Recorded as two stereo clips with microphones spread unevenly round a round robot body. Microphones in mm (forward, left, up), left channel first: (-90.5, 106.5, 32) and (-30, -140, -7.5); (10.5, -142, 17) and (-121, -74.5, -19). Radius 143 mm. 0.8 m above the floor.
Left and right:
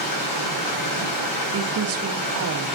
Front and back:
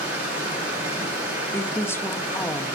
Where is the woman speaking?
105° right, 1.7 m.